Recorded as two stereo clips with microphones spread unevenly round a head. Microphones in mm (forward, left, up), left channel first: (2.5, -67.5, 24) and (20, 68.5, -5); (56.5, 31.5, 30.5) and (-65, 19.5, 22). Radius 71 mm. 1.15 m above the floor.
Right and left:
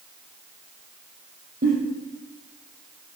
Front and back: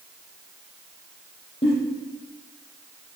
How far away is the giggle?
About 6 m.